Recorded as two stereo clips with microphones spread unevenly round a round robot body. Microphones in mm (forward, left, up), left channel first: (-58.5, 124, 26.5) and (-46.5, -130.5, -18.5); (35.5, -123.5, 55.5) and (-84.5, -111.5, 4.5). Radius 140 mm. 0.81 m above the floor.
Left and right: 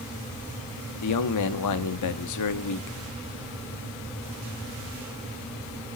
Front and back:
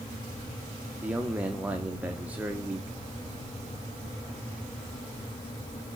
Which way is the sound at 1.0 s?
100° left.